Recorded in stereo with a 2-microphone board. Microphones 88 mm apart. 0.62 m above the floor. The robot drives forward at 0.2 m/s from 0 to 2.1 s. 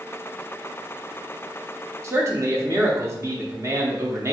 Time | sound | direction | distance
2.0 | a man speaking | 35° right (ahead or behind) | 0.7 m